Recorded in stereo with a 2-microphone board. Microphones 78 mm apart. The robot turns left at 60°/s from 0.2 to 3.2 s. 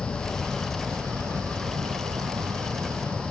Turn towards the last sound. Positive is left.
turn(degrees=-160)